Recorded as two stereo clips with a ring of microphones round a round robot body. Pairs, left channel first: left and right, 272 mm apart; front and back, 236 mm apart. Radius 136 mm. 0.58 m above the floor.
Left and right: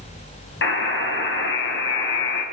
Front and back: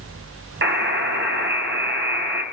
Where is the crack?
No crack in this recording.